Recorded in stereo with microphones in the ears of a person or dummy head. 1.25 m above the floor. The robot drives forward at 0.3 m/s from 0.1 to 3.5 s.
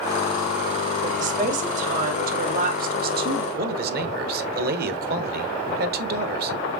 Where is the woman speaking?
45° right (ahead or behind), 2.5 m; by 3.4 s 60° right (ahead or behind), 2 m.